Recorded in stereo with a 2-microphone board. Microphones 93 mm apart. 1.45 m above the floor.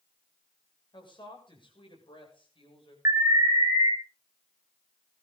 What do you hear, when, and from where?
0.9 s a woman speaking: 55° left (ahead or behind), 7 m; by 3.0 s 65° left (ahead or behind), 7.5 m
3.0 s an alarm: 35° right (ahead or behind), 3.5 m